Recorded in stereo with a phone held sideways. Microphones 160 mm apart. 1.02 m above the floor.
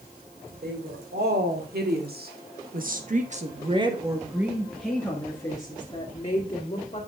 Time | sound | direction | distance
0.6 | a woman speaking | 85° right | 3 m